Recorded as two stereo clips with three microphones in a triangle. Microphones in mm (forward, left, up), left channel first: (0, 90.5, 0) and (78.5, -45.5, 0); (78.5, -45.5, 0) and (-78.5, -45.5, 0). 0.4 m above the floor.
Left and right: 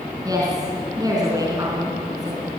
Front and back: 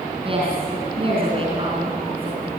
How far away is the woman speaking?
About 4 m.